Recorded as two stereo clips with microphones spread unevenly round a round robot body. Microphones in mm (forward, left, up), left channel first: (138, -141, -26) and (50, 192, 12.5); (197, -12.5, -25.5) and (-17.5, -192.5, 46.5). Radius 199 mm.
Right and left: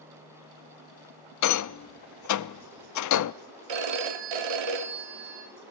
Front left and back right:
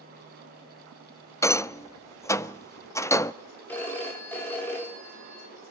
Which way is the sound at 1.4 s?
35° right.